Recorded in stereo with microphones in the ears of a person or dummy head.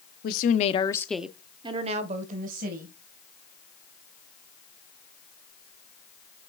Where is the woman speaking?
55° left (ahead or behind), 0.9 m; by 3.0 s 60° right (ahead or behind), 1.7 m.